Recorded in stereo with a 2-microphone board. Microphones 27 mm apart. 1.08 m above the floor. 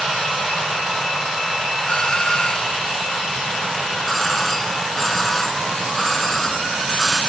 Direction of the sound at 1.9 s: 30° left (ahead or behind).